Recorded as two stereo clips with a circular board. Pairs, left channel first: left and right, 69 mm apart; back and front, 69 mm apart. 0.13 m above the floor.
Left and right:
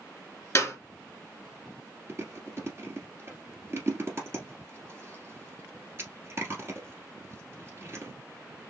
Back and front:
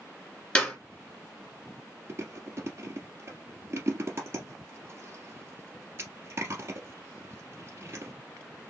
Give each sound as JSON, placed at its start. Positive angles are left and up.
{"t": 0.6, "sound": "a clap", "azimuth_deg": 120, "distance_m": 1.8}
{"t": 2.1, "sound": "chewing", "azimuth_deg": -45, "distance_m": 1.7}